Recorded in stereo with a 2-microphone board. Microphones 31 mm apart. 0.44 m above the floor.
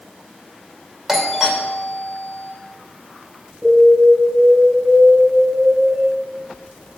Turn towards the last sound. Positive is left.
turn(degrees=-15)  # may be behind; listen again after turning